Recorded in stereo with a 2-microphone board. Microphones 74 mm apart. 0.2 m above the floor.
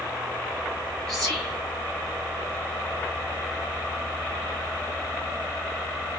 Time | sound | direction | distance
1.1 | whispering | 5° left (ahead or behind) | 1.0 m